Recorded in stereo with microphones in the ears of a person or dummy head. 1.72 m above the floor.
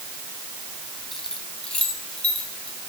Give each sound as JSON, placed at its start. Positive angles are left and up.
{"t": 1.1, "sound": "keys jangling", "side_deg": 0, "distance_m": 1.4}